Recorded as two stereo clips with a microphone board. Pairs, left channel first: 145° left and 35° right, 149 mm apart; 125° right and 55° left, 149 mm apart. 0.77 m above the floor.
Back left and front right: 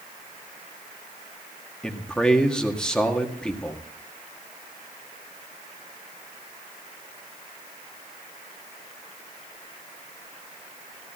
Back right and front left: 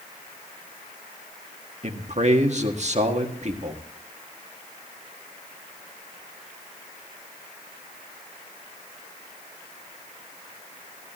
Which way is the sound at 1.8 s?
60° left.